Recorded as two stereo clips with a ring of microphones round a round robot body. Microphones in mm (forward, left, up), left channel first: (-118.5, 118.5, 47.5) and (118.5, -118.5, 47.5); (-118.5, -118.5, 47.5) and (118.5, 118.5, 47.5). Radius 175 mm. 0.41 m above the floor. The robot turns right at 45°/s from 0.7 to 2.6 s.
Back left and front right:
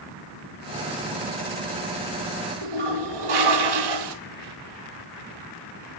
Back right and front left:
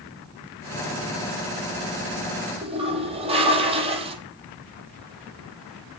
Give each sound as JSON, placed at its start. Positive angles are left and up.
{"t": 2.6, "sound": "a toilet flushing", "azimuth_deg": -30, "distance_m": 3.5}